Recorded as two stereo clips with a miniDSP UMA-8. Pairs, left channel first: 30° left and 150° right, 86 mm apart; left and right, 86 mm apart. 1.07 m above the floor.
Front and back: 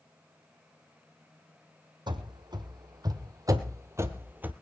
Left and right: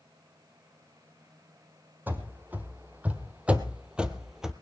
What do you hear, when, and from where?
2.1 s running footsteps: 155° right, 2.0 m; by 4.5 s 165° right, 1.1 m